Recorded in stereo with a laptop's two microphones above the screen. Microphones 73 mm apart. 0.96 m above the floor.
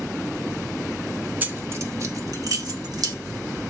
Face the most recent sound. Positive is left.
turn(degrees=-60)  # may be behind; listen again after turning